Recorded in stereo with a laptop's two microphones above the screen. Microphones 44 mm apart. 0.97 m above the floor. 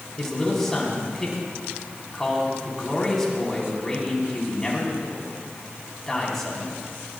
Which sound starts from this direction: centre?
A man speaking, at 0.2 s.